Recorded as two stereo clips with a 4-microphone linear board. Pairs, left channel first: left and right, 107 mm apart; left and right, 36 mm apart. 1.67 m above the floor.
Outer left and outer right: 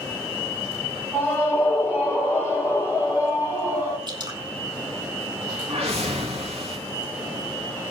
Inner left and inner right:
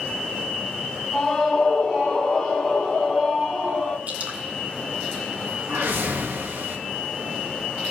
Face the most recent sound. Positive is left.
turn(degrees=-70)  # may be behind; listen again after turning